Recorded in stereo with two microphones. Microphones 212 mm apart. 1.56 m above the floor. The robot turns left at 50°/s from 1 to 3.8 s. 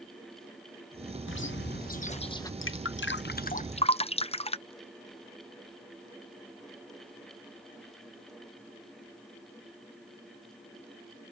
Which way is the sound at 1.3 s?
75° left.